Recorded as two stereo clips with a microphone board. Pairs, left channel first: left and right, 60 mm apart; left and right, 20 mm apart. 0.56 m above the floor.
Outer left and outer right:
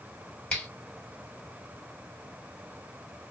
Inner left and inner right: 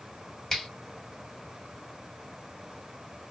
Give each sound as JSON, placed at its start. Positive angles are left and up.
{"t": 0.5, "sound": "a finger snap", "side_deg": 20, "distance_m": 1.5}